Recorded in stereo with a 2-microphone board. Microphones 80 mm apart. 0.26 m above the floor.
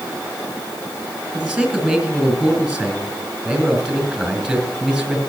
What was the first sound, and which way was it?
A man speaking, 5° right (ahead or behind).